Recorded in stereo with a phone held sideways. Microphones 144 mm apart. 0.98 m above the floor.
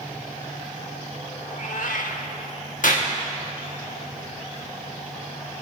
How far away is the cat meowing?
About 1.2 m.